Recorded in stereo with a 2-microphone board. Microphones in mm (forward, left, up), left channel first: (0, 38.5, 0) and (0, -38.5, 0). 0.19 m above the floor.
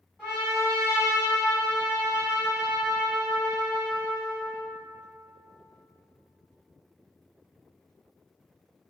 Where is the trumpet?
10° right (ahead or behind), 1.6 m.